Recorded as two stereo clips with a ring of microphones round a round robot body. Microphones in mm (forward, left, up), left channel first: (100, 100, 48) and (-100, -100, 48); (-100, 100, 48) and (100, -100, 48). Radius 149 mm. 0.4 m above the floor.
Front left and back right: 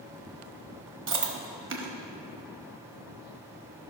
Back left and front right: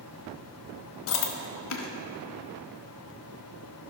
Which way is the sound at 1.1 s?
Straight behind.